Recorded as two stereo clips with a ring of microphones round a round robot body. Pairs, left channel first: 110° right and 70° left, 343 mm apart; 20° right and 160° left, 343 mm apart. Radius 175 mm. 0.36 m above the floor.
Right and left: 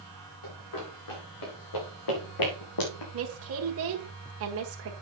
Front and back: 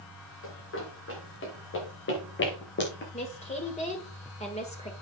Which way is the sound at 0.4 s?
80° right.